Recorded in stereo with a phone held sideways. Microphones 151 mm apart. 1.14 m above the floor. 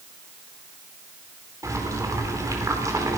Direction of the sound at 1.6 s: 20° right (ahead or behind).